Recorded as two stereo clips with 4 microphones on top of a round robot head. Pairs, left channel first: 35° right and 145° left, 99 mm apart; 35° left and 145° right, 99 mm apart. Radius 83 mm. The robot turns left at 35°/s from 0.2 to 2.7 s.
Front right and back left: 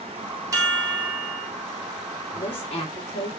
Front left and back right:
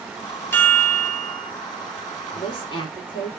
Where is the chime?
95° left, 1.4 m; by 1.5 s 65° left, 1.4 m.